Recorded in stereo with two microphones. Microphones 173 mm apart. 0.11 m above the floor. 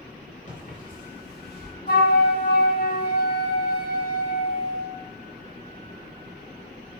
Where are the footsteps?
45° left (ahead or behind), 4 m; by 1.7 s 70° left (ahead or behind), 3.5 m.